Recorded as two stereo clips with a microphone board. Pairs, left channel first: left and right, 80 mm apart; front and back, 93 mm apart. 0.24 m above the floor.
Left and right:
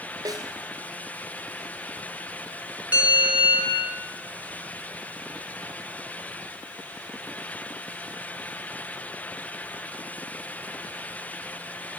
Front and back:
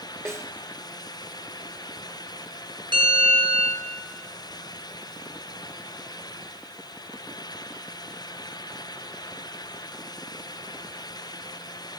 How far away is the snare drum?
About 2 m.